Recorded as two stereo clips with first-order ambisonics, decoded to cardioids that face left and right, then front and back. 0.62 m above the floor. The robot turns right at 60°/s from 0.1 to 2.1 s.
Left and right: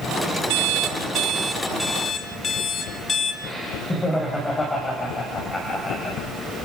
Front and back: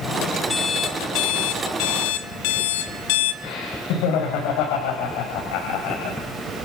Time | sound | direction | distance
0.5 | an alarm clock | 75° right | 1.5 m
3.4 | laughter | 10° left | 4 m